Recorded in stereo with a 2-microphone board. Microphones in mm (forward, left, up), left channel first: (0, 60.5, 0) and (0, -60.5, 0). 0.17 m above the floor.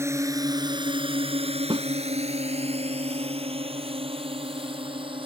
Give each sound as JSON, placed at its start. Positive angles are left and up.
{"t": 0.0, "sound": "a drone", "side_deg": -20}
{"t": 1.7, "sound": "a snare drum", "side_deg": -45}